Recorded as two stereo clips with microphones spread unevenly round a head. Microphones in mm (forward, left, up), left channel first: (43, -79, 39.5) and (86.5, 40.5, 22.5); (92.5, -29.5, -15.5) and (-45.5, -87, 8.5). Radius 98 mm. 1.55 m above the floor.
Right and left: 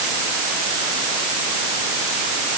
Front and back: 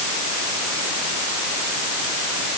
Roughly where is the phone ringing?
No phone ringing in this recording.